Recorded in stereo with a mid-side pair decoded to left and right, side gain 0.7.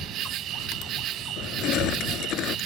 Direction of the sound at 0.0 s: 50° right.